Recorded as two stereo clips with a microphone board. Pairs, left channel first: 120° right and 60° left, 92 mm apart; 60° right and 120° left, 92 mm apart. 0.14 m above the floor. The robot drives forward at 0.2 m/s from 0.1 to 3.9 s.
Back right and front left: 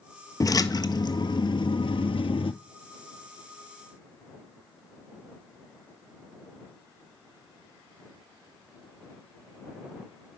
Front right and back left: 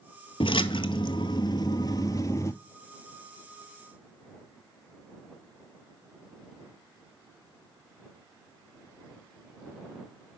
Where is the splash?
70° right, 0.6 m; by 2.5 s 115° right, 0.6 m.